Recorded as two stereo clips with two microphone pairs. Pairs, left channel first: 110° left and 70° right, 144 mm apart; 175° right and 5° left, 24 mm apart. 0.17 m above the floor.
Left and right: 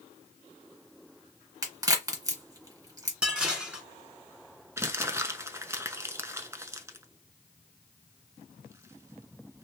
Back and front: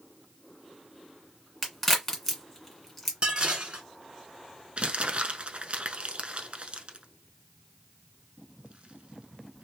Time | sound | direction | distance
1.6 | a crack | 105° right | 1.6 m
3.2 | dishes clattering | 10° left | 1.2 m
4.8 | crumpling | 5° right | 0.6 m